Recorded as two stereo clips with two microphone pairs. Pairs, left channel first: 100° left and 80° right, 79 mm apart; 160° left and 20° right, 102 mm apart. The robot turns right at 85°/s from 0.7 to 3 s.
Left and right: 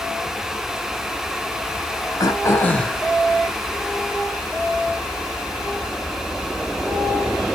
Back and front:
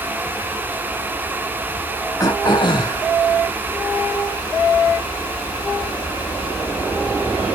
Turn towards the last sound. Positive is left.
turn(degrees=-170)